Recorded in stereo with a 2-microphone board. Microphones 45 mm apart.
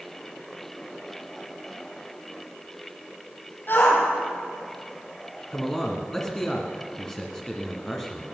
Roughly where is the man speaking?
Centre.